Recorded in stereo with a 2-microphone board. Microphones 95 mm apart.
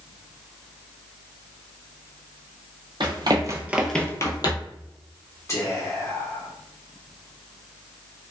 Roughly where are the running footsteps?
Right.